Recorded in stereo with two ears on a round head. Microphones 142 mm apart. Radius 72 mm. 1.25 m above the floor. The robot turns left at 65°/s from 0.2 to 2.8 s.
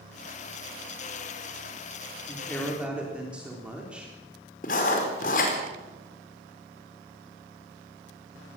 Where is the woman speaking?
30° left, 3.5 m; by 4.1 s 5° right, 3.5 m.